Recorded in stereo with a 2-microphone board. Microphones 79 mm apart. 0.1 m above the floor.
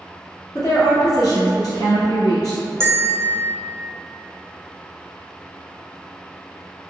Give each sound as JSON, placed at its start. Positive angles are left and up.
{"t": 0.6, "sound": "a woman speaking", "side_deg": 55, "distance_m": 2.0}
{"t": 2.8, "sound": "a bell", "side_deg": -35, "distance_m": 1.1}